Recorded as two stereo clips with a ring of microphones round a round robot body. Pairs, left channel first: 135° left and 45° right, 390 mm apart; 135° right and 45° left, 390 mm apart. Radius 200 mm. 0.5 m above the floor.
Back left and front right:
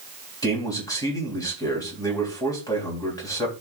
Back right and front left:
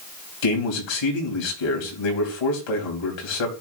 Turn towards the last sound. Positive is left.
turn(degrees=-145)